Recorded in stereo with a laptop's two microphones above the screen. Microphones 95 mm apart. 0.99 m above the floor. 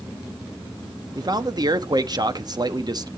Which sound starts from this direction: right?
A man speaking, at 1.1 s.